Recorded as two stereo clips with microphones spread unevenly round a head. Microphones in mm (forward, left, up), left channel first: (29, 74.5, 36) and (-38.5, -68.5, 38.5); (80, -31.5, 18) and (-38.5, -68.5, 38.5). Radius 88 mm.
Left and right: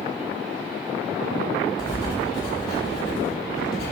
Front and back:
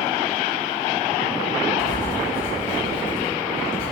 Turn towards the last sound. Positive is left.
turn(degrees=0)